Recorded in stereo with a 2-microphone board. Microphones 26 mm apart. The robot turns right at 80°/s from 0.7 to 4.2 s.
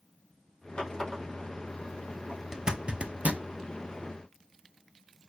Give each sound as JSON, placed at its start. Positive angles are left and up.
{"t": 0.8, "sound": "a running tap", "side_deg": 50, "distance_m": 3.0}
{"t": 2.5, "sound": "a zipper", "side_deg": -25, "distance_m": 0.6}